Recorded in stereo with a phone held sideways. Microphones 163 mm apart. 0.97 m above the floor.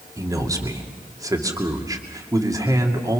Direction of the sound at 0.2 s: 20° right (ahead or behind).